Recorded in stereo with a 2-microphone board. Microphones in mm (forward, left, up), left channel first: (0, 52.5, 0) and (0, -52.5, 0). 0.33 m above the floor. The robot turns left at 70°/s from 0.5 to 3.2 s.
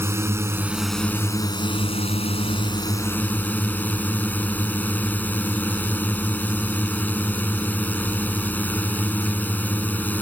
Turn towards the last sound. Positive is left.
turn(degrees=20)